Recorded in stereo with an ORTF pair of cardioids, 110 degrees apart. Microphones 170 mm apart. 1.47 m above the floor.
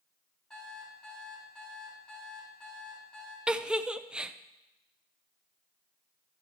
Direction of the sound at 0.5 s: 5° left.